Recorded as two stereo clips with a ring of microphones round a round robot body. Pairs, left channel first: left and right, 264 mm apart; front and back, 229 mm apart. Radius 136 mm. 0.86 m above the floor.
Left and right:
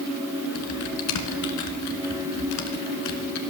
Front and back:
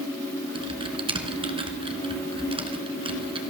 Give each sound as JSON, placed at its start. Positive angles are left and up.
{"t": 0.6, "sound": "typing on a keyboard", "azimuth_deg": 115, "distance_m": 1.9}